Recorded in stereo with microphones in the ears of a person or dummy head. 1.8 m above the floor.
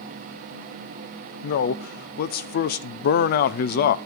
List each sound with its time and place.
1.4 s a man speaking: 45° left (ahead or behind), 0.8 m